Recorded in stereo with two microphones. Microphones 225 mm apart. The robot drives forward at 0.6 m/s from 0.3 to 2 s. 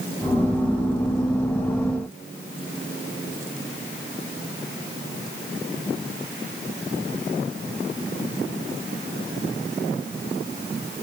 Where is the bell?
I don't hear a bell.